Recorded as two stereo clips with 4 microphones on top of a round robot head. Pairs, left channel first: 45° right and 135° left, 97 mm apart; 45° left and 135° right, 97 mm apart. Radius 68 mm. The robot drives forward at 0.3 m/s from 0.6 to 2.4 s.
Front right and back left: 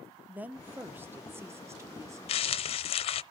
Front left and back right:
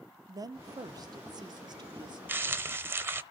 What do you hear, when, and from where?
0.3 s a woman speaking: 160° right, 0.8 m; by 2.2 s 170° right, 1.2 m
2.3 s crumpling: 65° right, 0.6 m; by 3.2 s 70° right, 0.6 m